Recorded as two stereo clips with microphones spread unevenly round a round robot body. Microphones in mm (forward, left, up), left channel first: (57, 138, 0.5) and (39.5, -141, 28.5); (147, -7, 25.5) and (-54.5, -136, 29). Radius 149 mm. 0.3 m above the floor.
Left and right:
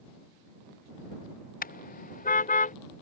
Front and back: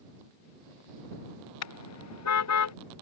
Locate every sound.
1.6 s a car horn: 25° left